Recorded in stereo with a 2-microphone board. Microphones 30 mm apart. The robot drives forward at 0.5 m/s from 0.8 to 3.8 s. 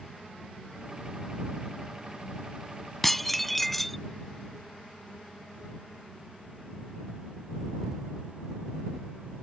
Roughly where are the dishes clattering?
Centre.